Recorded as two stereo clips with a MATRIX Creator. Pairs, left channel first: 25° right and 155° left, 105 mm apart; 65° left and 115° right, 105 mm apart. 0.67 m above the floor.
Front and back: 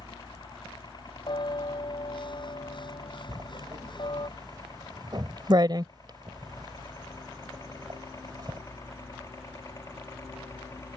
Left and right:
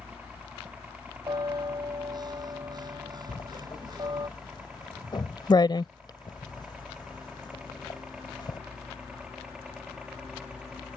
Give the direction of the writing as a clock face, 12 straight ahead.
8 o'clock.